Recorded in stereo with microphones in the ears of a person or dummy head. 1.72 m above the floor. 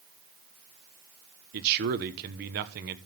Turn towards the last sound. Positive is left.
turn(degrees=-55)  # may be behind; listen again after turning